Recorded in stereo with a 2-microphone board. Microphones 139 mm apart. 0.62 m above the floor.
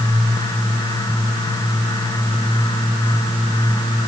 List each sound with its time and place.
Only background noise.